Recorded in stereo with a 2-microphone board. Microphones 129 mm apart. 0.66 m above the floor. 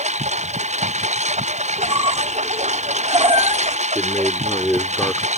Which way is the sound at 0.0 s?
60° right (ahead or behind).